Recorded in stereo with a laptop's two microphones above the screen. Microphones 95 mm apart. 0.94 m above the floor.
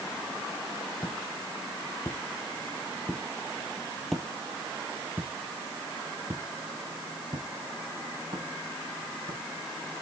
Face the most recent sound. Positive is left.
turn(degrees=-60)  # may be behind; listen again after turning